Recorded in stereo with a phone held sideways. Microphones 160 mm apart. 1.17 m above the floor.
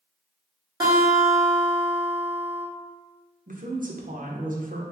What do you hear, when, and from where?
0.8 s a guitar: 25° right (ahead or behind), 1.8 m
3.5 s a woman speaking: 55° right (ahead or behind), 0.8 m